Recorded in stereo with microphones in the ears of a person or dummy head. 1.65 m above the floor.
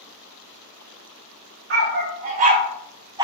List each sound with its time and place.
1.7 s a dog barking: 50° right (ahead or behind), 1.7 m; by 3.2 s 25° right (ahead or behind), 1.7 m